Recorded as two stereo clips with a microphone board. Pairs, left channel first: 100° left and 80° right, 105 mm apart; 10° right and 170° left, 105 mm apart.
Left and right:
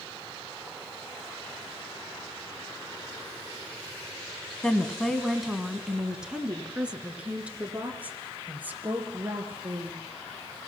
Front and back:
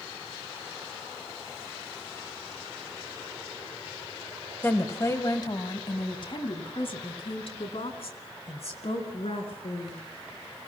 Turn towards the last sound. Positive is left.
turn(degrees=-5)